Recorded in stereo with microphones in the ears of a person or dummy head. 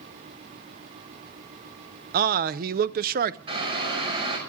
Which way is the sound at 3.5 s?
30° right (ahead or behind).